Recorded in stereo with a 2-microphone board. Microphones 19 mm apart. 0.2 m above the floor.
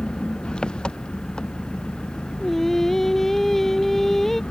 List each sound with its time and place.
0.0 s an engine running: 70° left (ahead or behind)
2.4 s singing: 10° left (ahead or behind)